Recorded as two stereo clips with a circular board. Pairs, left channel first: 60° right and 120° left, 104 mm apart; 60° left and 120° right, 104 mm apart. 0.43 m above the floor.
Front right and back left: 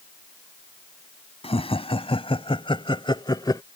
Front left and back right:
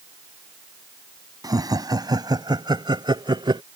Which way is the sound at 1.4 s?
70° right.